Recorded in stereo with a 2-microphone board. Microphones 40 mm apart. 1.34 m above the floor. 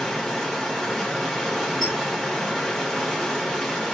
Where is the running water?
10° left (ahead or behind), 1.1 m.